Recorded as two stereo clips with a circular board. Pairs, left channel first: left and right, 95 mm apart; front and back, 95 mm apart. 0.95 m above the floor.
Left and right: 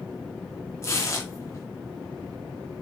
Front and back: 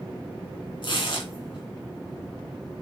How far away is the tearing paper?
About 2.5 m.